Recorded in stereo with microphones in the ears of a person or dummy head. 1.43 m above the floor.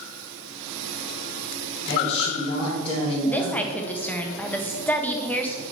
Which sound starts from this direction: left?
A man speaking, at 1.9 s.